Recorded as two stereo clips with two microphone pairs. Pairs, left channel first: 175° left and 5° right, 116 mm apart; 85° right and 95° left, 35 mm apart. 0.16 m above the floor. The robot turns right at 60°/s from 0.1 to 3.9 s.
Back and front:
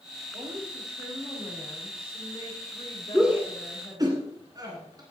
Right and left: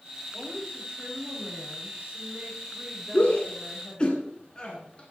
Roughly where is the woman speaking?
Ahead left.